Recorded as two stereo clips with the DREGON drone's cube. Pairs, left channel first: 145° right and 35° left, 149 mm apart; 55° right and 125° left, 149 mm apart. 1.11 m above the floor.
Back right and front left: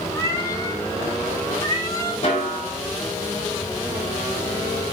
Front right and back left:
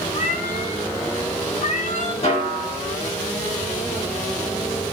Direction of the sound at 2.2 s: 100° right.